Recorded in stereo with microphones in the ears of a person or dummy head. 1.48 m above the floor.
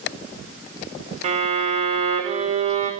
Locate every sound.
1.2 s a violin: 35° right (ahead or behind), 1.9 m